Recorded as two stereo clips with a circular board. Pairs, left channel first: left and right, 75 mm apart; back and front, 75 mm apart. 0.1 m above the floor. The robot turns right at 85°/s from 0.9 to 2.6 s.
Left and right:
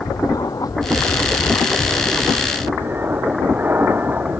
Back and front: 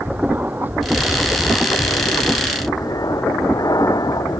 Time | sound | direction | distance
0.0 | an aircraft | 65° left | ?